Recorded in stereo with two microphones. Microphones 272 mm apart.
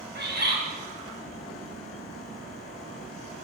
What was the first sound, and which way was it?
A bird, 40° right (ahead or behind).